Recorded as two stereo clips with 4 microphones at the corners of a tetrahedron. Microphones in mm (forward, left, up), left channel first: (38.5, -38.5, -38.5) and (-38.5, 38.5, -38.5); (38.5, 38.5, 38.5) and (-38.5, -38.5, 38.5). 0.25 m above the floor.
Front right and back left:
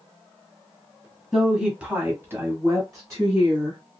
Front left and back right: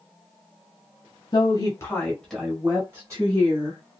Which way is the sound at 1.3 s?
50° left.